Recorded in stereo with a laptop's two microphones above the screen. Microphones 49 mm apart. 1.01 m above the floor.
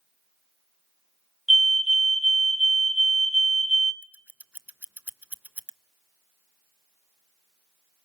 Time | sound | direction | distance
1.5 | a fire alarm | 5° right (ahead or behind) | 1.7 m
4.0 | scissors | 30° right (ahead or behind) | 0.7 m